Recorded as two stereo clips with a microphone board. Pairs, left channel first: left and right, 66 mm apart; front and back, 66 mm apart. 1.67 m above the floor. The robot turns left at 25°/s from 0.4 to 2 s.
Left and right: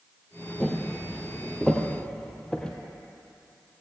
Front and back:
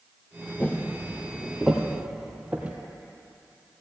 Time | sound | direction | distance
0.6 | footsteps | 40° left | 1.8 m